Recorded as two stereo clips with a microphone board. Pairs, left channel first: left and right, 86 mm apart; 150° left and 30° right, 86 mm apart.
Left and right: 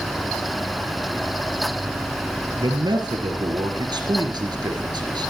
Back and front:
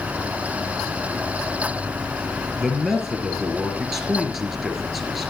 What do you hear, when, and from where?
2.6 s a man speaking: 115° right, 4 m